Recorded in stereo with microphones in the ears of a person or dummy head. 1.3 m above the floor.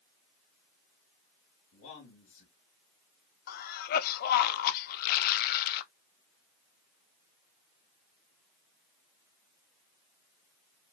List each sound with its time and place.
1.7 s a man speaking: 70° left (ahead or behind), 2.5 m
3.5 s a cough: 55° left (ahead or behind), 0.6 m